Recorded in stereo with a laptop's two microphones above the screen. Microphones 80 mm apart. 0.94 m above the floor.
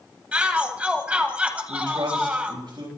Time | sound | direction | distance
0.3 | a shout | 20° right (ahead or behind) | 1.2 m
1.7 | a man speaking | 75° right (ahead or behind) | 4.5 m